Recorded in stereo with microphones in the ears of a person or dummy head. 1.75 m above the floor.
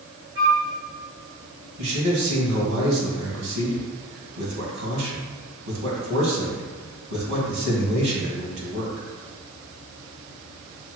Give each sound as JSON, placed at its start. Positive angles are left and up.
{"t": 0.3, "sound": "a flute", "side_deg": -25, "distance_m": 1.1}
{"t": 1.8, "sound": "a man speaking", "side_deg": -80, "distance_m": 1.7}